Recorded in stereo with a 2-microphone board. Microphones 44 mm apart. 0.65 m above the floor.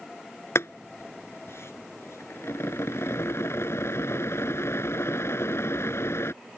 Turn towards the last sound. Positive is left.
turn(degrees=85)